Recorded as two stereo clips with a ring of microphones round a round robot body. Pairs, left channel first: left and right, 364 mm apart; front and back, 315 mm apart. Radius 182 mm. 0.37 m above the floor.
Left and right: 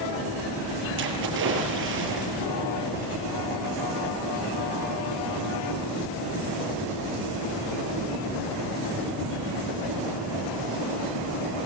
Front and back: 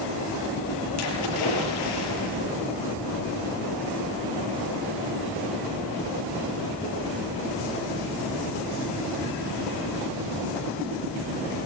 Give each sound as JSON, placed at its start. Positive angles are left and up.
{"t": 1.0, "sound": "a splash", "azimuth_deg": -30, "distance_m": 7.5}